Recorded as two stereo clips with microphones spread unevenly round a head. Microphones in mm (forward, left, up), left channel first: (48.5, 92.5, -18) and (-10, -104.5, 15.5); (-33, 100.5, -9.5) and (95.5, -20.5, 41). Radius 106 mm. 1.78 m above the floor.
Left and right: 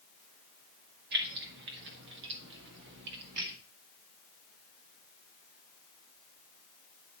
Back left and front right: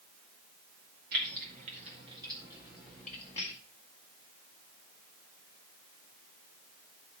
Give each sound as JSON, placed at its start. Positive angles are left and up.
{"t": 1.1, "sound": "keys jangling", "azimuth_deg": -75, "distance_m": 2.0}